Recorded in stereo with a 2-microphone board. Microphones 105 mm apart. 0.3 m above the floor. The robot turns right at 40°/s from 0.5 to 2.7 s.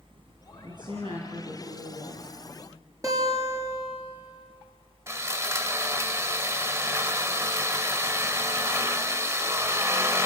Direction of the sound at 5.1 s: 25° right (ahead or behind).